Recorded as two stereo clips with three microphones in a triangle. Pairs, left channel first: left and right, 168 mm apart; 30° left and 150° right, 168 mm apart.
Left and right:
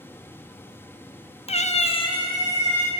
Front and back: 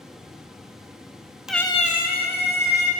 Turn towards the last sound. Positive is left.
turn(degrees=20)